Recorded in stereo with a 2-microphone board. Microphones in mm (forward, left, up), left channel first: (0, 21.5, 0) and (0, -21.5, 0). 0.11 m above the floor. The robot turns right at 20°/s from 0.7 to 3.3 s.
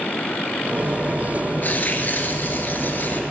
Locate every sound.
1.6 s tearing paper: 70° left, 0.9 m; by 3.2 s 100° left, 0.9 m